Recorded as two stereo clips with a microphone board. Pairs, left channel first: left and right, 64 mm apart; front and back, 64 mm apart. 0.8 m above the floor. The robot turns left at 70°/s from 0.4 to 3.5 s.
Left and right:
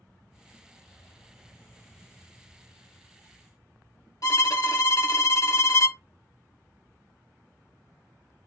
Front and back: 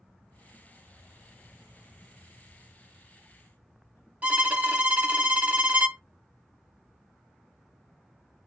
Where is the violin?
115° left, 0.6 m.